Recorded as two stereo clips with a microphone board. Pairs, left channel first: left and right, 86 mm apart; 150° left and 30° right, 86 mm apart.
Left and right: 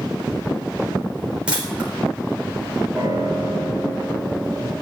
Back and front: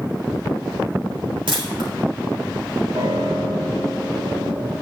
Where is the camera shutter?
10° right, 3.5 m.